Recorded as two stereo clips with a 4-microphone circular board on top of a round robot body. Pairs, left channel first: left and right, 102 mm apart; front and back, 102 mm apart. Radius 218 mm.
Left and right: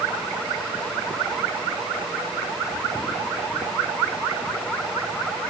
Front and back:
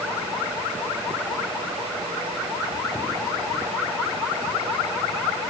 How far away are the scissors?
No scissors in this recording.